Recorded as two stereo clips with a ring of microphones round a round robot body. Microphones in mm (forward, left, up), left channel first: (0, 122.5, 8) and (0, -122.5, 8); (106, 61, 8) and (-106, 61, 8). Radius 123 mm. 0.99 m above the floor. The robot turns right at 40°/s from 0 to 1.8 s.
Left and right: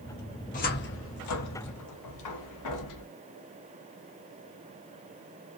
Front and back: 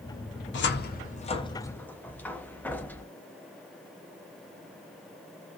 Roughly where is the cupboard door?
Ahead left.